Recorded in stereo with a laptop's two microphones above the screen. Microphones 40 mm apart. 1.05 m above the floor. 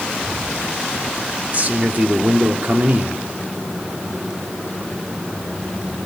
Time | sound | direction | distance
1.5 | a man speaking | 45° right (ahead or behind) | 3 m